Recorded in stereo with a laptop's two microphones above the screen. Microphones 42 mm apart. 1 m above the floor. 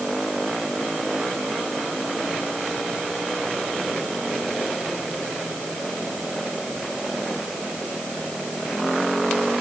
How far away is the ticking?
No ticking in this recording.